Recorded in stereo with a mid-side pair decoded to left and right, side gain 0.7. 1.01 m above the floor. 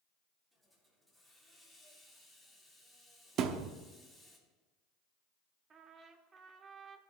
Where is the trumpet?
30° right, 1.3 m.